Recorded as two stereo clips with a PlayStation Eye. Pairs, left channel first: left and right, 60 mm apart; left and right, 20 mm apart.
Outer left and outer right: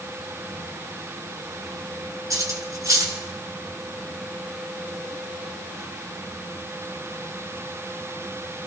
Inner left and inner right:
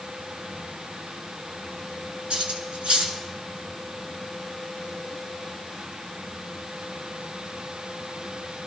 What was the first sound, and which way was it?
Cutlery clinking, 65° right (ahead or behind).